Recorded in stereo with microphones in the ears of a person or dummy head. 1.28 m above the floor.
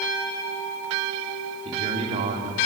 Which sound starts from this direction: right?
A man speaking, at 1.6 s.